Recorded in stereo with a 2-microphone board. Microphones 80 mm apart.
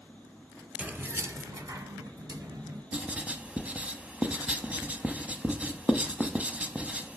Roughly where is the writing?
Centre.